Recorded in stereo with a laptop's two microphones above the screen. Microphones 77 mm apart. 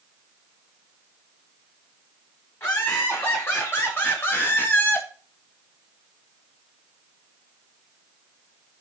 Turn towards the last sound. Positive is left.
turn(degrees=25)  # may be behind; listen again after turning